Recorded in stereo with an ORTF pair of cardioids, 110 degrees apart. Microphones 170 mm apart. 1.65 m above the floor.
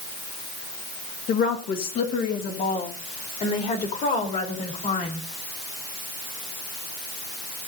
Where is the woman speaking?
65° left, 1.9 m; by 5.2 s 50° left, 4.5 m.